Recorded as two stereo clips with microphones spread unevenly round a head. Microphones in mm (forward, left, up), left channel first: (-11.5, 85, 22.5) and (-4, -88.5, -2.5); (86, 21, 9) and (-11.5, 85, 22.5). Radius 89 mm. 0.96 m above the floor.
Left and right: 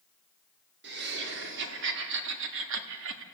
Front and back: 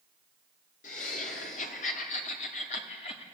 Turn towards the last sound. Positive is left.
turn(degrees=-85)